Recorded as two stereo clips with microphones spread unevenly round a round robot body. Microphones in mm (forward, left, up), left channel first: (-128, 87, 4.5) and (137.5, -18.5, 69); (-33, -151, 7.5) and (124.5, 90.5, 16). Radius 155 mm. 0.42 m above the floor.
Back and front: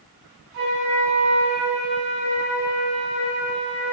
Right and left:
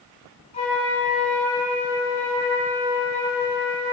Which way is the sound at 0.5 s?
65° right.